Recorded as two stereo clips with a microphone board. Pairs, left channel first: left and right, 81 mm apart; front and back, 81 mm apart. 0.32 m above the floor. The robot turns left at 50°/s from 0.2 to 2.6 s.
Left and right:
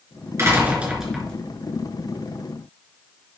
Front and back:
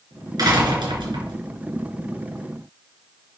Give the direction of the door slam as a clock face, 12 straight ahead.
5 o'clock.